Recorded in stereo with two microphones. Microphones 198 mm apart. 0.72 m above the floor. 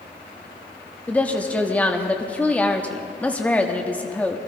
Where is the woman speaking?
5° left (ahead or behind), 1.0 m.